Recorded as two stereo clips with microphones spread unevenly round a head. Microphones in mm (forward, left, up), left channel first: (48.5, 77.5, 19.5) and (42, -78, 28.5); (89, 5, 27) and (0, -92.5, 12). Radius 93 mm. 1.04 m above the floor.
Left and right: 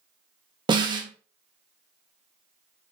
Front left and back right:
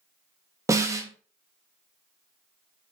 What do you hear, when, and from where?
0.7 s a snare drum: 120° right, 0.6 m